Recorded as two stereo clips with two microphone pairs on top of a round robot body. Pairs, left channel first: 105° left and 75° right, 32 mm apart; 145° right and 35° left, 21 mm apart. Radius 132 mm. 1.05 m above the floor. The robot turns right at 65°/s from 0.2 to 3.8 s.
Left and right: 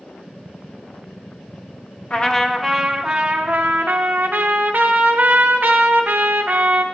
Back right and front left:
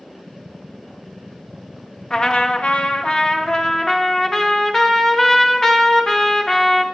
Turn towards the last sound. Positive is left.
turn(degrees=-85)